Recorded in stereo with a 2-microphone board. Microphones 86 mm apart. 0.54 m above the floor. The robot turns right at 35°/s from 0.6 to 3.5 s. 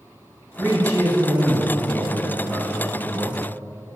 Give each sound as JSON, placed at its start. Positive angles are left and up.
{"t": 0.6, "sound": "a man speaking", "azimuth_deg": -45, "distance_m": 3.5}